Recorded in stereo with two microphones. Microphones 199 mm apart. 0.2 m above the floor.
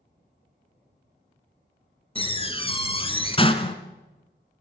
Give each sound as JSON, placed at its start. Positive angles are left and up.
{"t": 2.1, "sound": "a door slam", "side_deg": 30, "distance_m": 1.4}